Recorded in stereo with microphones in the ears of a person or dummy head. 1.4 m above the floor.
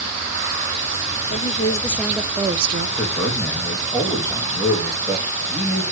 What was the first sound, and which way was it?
A woman speaking, 30° left (ahead or behind).